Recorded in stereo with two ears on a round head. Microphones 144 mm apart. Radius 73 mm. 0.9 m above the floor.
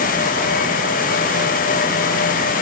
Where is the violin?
No violin in this recording.